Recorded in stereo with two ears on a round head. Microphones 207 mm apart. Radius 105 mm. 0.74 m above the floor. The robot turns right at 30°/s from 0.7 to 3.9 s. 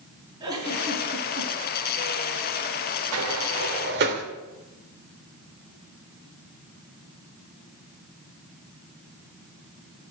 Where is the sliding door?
65° right (ahead or behind), 2 m; by 4.2 s 45° right (ahead or behind), 2 m.